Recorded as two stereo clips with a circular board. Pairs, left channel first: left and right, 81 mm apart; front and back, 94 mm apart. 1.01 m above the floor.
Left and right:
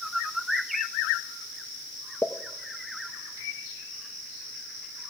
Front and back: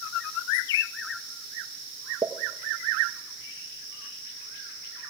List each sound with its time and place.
2.2 s a pop: 145° left, 0.6 m